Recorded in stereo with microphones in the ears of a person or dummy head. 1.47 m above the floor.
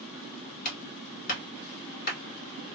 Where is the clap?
50° left (ahead or behind), 2 m.